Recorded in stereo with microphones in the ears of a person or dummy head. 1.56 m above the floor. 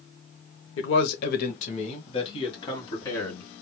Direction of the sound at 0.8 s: 70° left (ahead or behind).